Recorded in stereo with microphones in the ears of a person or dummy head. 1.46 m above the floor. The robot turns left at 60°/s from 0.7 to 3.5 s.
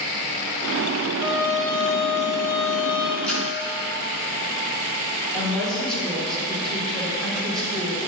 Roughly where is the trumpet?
Behind.